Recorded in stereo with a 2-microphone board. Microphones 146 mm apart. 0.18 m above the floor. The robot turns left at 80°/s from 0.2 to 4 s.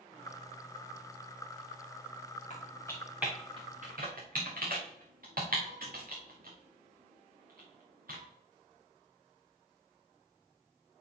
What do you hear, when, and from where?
2.5 s typing on a keyboard: 50° left (ahead or behind), 4 m; by 8.2 s 70° right (ahead or behind), 4 m